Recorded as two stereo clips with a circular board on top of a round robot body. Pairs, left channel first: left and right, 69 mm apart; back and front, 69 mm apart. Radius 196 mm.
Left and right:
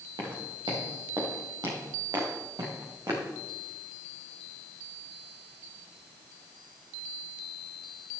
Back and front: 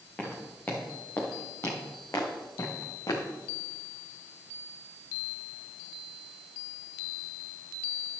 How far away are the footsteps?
About 4 m.